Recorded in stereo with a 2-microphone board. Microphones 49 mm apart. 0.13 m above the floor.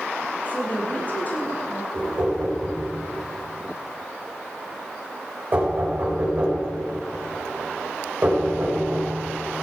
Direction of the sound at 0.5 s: 30° left (ahead or behind).